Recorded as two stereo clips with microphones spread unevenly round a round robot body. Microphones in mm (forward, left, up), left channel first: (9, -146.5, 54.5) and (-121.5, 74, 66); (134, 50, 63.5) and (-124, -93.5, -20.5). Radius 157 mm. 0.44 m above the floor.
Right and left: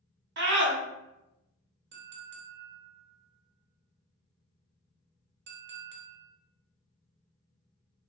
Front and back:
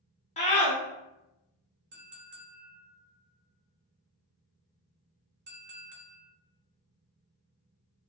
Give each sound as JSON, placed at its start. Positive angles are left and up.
{"t": 0.4, "sound": "a scream", "azimuth_deg": 105, "distance_m": 1.1}
{"t": 1.9, "sound": "a clink", "azimuth_deg": 165, "distance_m": 0.7}